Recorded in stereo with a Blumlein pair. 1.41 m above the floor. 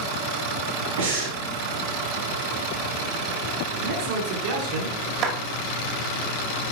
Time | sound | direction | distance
1.0 | breathing | 65° right | 3 m
3.8 | a man speaking | 45° right | 3 m
5.2 | a clap | 35° right | 2 m